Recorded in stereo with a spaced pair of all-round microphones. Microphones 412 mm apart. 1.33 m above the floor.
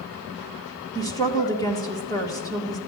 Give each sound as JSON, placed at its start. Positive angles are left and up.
{"t": 0.9, "sound": "a woman speaking", "side_deg": 10, "distance_m": 1.8}